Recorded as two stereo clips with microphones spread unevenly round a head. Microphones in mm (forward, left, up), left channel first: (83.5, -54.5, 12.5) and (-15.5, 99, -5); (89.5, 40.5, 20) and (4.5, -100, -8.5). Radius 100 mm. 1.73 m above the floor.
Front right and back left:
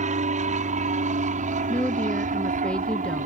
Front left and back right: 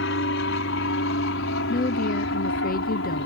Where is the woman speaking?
25° left.